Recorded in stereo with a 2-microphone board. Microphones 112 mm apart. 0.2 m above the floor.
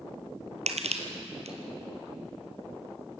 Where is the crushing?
75° right (ahead or behind), 1.9 m.